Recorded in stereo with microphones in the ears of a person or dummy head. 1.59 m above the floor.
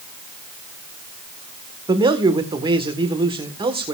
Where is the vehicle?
No vehicle in this recording.